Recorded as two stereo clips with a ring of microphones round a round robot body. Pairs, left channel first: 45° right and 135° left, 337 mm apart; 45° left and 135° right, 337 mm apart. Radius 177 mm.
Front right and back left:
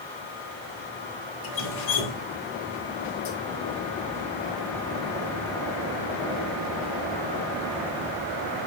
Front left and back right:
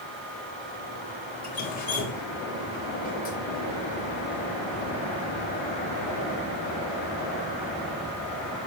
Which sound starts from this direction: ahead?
Dripping, at 1.4 s.